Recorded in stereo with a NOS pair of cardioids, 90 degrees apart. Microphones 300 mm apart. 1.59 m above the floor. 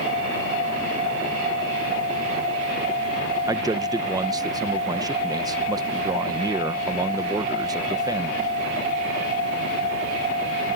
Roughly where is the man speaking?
Ahead.